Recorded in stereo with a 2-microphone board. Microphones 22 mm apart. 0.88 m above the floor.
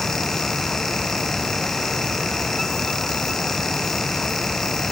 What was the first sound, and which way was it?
Only background noise.